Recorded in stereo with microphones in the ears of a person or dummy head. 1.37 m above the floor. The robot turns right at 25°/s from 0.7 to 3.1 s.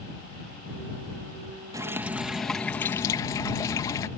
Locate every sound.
1.7 s dripping: 15° right; by 4.1 s 20° left